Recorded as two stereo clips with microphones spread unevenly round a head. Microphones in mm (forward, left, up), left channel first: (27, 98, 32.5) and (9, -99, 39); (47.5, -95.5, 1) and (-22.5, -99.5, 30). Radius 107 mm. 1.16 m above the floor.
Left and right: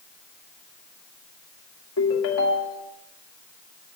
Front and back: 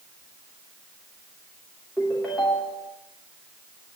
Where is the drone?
No drone in this recording.